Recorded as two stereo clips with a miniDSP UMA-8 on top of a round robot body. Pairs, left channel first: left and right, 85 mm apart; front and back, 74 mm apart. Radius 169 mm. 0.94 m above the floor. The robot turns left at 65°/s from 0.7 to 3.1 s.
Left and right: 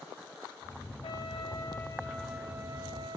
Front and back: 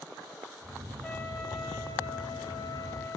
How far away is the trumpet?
About 1.1 m.